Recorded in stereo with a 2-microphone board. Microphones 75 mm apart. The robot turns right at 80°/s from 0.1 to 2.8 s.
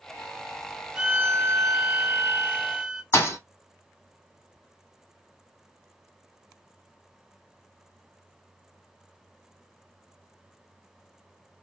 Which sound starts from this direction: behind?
A violin, at 0.9 s.